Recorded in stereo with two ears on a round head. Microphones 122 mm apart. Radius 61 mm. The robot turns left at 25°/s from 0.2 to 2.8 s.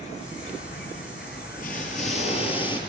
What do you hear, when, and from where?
0.0 s an insect: 125° left, 8.5 m; by 2.9 s 60° left, 8.5 m
1.6 s an explosion: 65° left, 7.5 m; by 2.8 s 35° left, 7.5 m